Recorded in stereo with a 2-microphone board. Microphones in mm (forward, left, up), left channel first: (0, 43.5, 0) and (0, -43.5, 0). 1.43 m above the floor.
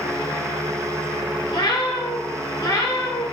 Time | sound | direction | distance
1.5 | a cat meowing | 65° left (ahead or behind) | 3.5 m